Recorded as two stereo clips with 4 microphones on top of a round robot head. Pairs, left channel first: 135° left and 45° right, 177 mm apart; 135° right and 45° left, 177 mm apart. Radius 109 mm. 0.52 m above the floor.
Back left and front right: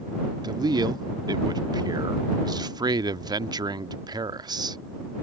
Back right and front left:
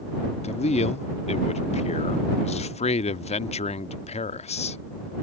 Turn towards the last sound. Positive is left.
turn(degrees=-105)